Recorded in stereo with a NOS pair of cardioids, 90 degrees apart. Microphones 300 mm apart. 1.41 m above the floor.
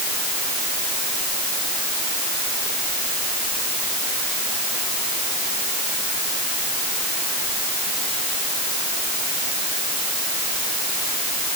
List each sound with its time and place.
Only background noise.